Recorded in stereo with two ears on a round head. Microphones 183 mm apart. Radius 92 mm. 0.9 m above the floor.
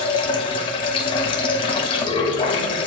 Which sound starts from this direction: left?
Running water, at 0.0 s.